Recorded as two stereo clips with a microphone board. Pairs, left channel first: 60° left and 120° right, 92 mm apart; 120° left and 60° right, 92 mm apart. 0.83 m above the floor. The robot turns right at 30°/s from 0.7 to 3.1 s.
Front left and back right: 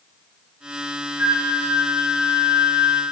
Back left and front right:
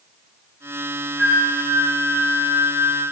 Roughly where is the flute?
Behind right.